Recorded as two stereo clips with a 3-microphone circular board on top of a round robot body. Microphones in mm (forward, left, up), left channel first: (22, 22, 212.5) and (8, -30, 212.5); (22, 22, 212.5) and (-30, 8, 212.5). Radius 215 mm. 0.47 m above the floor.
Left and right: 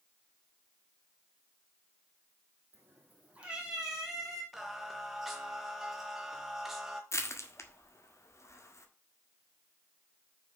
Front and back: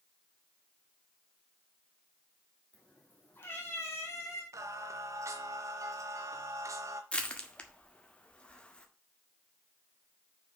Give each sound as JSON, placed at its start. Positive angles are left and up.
{"t": 2.7, "sound": "a cat meowing", "azimuth_deg": -55, "distance_m": 2.0}
{"t": 4.5, "sound": "singing", "azimuth_deg": 170, "distance_m": 0.7}
{"t": 7.1, "sound": "crushing", "azimuth_deg": 85, "distance_m": 2.0}